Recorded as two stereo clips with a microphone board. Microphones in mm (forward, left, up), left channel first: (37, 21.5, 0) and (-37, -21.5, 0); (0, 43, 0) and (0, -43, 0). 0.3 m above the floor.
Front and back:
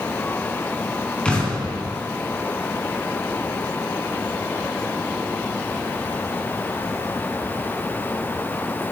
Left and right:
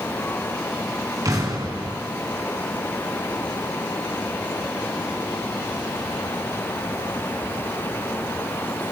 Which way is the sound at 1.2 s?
45° right.